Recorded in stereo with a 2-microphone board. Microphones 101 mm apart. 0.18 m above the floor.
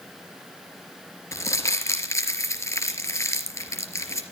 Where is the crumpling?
30° left (ahead or behind), 3 m.